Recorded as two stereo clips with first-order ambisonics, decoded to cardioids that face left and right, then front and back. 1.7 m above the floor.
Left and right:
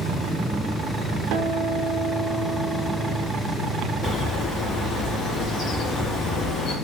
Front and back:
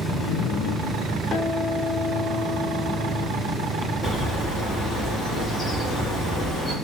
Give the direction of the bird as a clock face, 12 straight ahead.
9 o'clock.